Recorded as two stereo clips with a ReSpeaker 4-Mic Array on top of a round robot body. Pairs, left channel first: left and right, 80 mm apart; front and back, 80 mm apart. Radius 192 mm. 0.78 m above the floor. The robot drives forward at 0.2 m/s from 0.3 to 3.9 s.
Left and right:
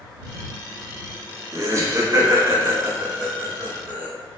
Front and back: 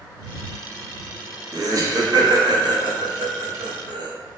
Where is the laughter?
140° right, 0.8 m; by 4.1 s 155° right, 1.2 m.